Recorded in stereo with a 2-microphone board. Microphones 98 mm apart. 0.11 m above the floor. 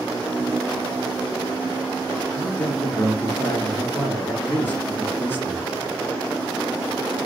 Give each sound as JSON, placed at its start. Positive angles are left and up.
{"t": 2.4, "sound": "a man speaking", "side_deg": 20, "distance_m": 1.1}